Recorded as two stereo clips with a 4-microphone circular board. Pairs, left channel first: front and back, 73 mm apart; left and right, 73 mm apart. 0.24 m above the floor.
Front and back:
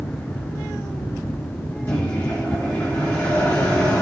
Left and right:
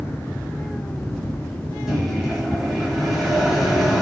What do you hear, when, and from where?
1.9 s a microwave: 5° right, 1.3 m